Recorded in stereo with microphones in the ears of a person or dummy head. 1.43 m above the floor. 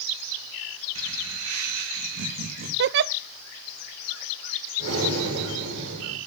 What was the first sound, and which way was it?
Laughter, 80° right.